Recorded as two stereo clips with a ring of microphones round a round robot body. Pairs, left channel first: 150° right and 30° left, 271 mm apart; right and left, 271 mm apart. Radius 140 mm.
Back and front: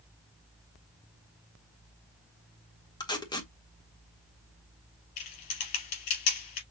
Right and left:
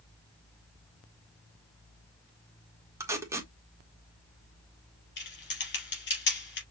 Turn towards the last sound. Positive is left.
turn(degrees=-145)